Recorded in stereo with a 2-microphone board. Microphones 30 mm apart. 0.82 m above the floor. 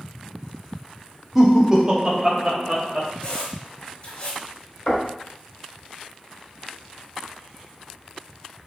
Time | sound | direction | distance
1.4 | laughter | 15° right (ahead or behind) | 1.2 m
3.2 | a squeak | 35° left (ahead or behind) | 1.3 m
4.9 | knocking | 45° left (ahead or behind) | 2.5 m